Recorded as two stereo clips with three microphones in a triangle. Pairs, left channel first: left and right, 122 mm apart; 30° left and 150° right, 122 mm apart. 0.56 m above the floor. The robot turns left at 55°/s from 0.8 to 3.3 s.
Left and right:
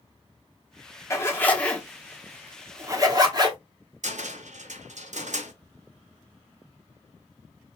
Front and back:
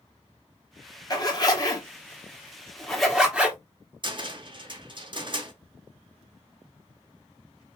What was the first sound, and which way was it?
A zipper, 45° left.